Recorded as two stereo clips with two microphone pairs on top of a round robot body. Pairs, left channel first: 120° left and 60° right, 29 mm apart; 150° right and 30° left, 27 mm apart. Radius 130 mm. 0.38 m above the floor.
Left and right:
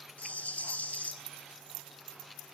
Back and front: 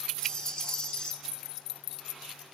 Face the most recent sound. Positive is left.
turn(degrees=155)